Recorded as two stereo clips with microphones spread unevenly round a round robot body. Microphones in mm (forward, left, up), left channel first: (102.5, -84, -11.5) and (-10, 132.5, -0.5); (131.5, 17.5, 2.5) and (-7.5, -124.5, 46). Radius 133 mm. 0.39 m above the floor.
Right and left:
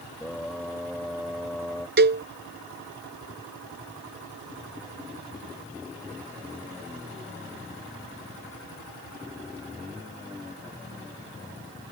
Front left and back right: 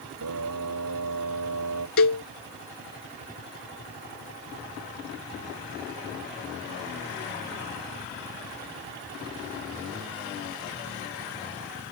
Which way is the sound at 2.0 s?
70° left.